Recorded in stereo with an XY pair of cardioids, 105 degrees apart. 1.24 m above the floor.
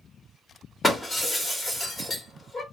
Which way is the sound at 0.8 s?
25° left.